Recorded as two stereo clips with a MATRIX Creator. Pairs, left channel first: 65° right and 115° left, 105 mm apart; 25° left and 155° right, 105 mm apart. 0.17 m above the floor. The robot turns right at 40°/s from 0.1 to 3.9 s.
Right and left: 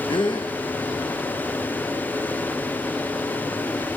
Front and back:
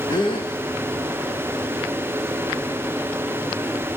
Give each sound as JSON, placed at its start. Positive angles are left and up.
{"t": 0.1, "sound": "a gasp", "azimuth_deg": -30, "distance_m": 3.5}